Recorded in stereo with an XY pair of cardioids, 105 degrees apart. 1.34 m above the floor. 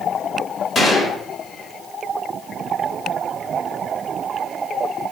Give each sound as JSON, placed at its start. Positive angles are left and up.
{"t": 0.8, "sound": "a gunshot", "azimuth_deg": 35, "distance_m": 2.5}